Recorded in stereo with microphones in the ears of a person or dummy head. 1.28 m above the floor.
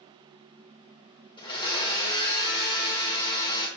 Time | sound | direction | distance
1.4 | a blender | 25° left (ahead or behind) | 0.9 m